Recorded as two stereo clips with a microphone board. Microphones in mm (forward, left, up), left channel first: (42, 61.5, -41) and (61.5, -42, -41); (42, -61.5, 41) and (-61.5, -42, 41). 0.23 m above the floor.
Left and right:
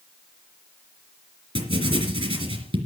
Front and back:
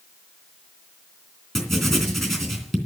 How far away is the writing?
About 3 m.